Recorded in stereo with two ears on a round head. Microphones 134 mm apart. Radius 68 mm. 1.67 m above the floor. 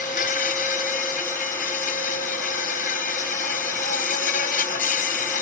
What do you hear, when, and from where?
0.0 s an insect: 60° left (ahead or behind)